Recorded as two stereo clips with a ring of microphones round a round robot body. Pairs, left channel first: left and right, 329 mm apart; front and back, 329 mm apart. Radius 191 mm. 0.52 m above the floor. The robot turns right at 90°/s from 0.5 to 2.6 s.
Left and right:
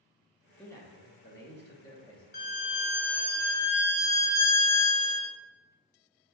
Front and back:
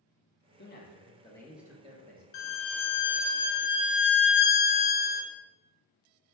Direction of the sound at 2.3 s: 30° left.